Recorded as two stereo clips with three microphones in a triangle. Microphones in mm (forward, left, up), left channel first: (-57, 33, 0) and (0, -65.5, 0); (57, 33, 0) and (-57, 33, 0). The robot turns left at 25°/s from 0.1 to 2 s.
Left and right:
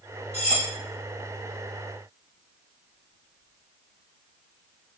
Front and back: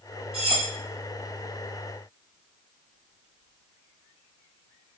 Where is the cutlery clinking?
145° left, 2.5 m; by 0.7 s 135° left, 2.5 m.